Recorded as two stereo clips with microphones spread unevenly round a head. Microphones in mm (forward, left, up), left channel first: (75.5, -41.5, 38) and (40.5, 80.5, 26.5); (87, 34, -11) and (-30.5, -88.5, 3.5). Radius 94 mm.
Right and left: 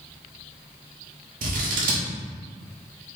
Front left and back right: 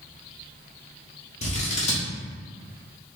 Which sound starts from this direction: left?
Scissors, at 1.4 s.